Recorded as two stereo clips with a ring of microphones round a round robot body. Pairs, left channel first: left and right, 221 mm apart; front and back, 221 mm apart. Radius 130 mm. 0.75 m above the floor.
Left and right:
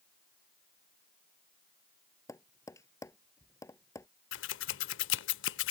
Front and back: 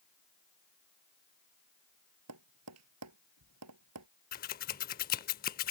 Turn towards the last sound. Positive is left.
turn(degrees=50)